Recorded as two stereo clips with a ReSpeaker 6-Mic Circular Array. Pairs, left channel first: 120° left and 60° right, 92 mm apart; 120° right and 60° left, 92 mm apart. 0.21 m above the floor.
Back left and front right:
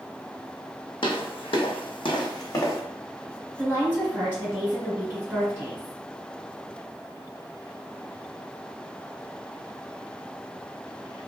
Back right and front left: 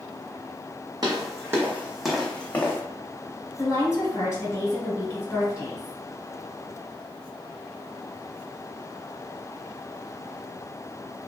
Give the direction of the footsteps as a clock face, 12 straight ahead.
9 o'clock.